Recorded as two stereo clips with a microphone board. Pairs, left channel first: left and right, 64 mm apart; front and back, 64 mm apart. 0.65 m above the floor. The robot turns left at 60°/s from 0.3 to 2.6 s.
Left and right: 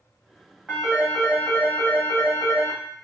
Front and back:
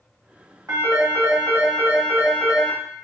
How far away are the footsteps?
I don't hear footsteps.